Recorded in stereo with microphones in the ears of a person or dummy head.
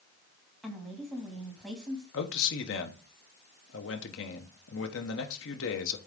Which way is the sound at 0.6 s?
5° left (ahead or behind).